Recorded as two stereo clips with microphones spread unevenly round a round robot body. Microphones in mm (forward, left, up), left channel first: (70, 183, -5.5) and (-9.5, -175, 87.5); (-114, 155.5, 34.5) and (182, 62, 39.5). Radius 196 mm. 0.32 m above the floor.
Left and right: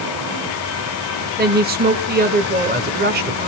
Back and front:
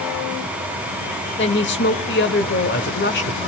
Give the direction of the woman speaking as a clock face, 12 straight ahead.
6 o'clock.